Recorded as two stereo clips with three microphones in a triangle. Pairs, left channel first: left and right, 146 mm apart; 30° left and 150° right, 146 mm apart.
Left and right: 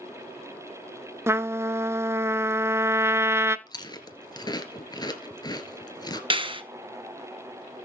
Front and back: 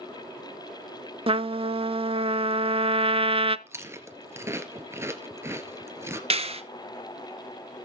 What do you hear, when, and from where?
1.3 s a trumpet: 150° right, 0.6 m
3.7 s chewing: 145° left, 2 m
6.3 s a clap: 130° right, 1.5 m